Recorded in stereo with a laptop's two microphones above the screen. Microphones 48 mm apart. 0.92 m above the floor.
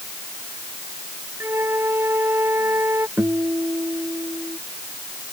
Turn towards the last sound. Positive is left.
turn(degrees=-60)  # may be behind; listen again after turning